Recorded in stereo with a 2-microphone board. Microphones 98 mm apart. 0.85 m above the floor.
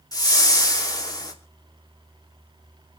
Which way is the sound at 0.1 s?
40° left (ahead or behind).